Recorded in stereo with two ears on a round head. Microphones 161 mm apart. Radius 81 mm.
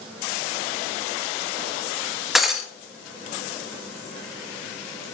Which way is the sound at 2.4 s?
Centre (ahead or behind).